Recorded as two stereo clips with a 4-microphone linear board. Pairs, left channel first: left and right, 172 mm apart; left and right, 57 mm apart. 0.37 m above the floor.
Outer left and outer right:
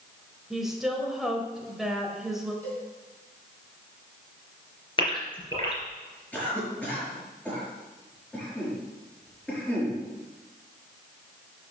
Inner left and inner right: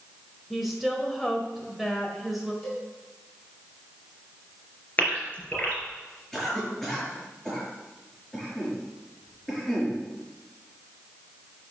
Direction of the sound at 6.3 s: 10° left (ahead or behind).